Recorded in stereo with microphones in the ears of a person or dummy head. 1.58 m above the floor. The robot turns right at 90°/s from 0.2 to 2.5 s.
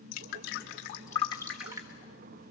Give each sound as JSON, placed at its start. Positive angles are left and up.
{"t": 0.1, "sound": "dripping", "side_deg": 50, "distance_m": 1.5}